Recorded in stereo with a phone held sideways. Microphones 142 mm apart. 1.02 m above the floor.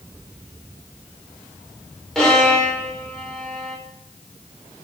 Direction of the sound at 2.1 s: 5° left (ahead or behind).